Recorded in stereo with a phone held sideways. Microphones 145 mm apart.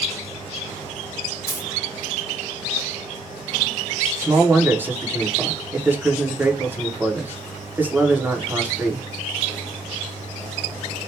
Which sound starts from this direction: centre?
A man speaking, at 4.2 s.